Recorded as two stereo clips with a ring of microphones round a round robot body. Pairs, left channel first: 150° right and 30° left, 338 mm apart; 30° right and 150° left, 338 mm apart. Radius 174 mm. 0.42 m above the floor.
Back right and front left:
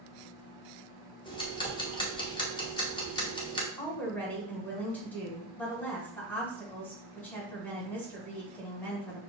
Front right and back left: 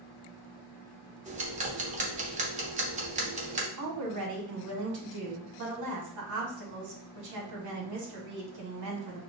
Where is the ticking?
160° left, 0.9 m.